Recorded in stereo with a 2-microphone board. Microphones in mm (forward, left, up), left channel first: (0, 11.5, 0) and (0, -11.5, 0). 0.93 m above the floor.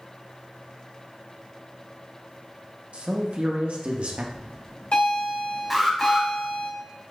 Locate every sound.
2.9 s a man speaking: 65° right (ahead or behind), 0.9 m
4.3 s a bell: 80° left, 1.9 m
5.7 s an alarm: 5° right (ahead or behind), 1.2 m